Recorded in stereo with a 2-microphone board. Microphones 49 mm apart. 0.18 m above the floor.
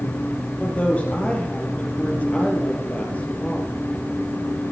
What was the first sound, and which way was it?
A woman speaking, 30° left (ahead or behind).